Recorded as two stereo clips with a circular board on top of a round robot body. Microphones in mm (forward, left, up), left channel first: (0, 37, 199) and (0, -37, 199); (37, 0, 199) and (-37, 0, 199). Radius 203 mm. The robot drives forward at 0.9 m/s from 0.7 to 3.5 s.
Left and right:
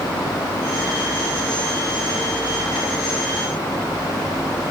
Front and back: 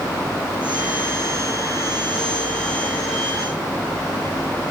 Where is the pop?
No pop in this recording.